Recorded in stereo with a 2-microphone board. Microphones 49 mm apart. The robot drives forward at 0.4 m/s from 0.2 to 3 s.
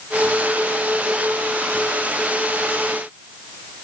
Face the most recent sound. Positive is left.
No sound to turn to.